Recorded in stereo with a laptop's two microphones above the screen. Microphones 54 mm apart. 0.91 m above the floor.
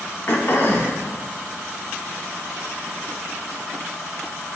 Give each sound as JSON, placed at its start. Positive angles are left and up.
{"t": 0.3, "sound": "throat clearing", "side_deg": 45, "distance_m": 0.9}